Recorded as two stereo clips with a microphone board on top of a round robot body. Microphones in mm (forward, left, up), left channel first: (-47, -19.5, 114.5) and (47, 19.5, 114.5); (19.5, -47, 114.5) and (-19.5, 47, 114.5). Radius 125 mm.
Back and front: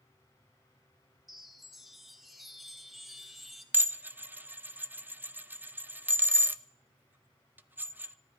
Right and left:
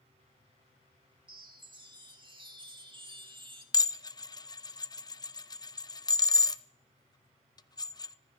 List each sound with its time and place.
1.3 s a chime: 110° left, 2 m
3.7 s dishes clattering: 40° right, 0.8 m